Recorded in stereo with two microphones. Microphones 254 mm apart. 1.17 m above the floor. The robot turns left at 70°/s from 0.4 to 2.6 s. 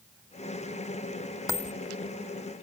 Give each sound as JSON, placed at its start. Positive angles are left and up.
{"t": 1.5, "sound": "a dropped coin", "side_deg": 15}